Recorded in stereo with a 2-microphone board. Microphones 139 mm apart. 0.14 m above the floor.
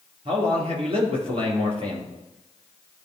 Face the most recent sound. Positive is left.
turn(degrees=-45)  # may be behind; listen again after turning